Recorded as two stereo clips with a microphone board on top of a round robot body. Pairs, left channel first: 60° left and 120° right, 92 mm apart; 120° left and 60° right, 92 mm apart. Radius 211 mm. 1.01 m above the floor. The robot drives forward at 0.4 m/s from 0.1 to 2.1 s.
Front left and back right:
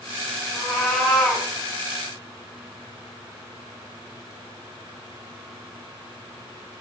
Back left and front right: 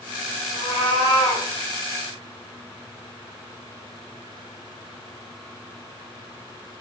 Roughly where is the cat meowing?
Behind left.